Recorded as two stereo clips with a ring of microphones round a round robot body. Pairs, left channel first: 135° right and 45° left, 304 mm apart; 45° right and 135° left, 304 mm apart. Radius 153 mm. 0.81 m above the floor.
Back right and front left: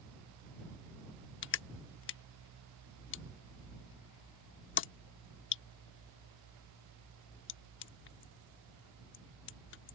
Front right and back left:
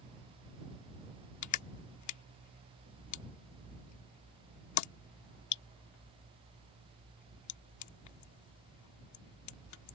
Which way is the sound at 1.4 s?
80° right.